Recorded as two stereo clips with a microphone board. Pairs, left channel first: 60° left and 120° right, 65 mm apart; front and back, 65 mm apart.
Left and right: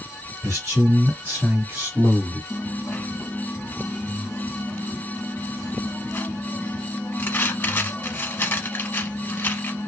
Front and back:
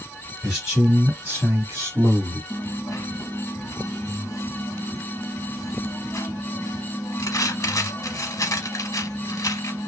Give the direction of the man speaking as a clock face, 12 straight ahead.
3 o'clock.